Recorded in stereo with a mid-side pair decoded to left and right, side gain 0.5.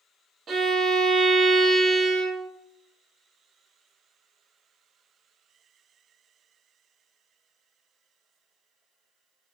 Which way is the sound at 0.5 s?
40° right.